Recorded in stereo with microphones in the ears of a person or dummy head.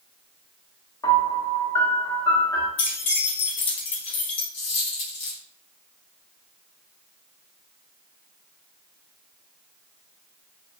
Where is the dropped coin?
35° left (ahead or behind), 1.2 m.